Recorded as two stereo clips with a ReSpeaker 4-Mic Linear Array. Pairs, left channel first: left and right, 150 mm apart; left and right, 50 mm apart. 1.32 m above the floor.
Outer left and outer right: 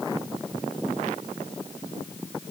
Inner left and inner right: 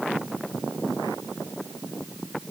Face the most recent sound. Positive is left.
No sound to turn to.